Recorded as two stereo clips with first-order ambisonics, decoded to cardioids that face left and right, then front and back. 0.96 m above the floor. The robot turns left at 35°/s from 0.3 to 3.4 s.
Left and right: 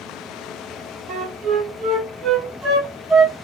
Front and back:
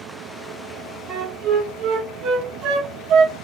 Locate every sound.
1.1 s a flute: 110° right, 1.3 m; by 3.4 s 170° left, 1.3 m